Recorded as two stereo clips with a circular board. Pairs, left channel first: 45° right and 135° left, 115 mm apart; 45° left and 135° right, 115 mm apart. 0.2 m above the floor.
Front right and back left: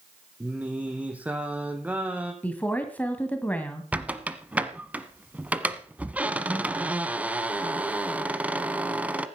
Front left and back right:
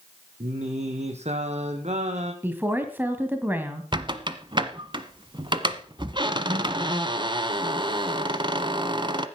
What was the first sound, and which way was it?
Singing, 145° right.